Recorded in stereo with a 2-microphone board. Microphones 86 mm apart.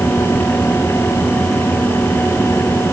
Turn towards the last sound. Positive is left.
No sound to turn to.